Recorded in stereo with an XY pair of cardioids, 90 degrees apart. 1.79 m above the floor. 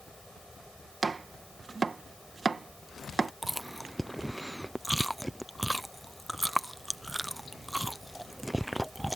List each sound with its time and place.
0.0 s a fan: 10° left
1.0 s chopping: 30° right
3.4 s chewing: straight ahead